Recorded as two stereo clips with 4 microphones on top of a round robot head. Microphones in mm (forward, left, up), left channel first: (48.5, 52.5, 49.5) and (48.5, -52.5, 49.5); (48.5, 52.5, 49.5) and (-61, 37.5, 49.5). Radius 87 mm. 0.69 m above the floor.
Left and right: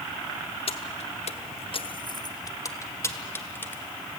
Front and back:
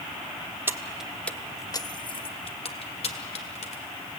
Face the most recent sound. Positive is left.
turn(degrees=20)